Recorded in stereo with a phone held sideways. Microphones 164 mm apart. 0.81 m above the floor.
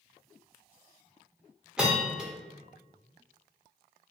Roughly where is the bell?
Centre.